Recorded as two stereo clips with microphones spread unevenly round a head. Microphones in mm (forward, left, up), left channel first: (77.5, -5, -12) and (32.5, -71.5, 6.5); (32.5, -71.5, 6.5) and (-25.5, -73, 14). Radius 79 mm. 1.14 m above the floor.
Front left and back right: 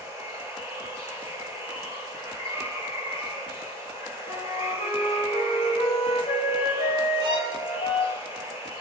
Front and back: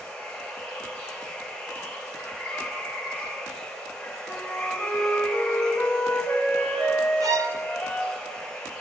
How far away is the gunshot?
I don't hear a gunshot.